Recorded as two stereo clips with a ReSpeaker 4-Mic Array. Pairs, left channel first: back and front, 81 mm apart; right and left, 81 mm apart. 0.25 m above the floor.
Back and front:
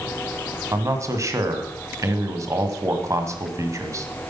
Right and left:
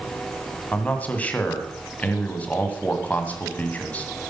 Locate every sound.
0.7 s a man speaking: 25° right, 1.9 m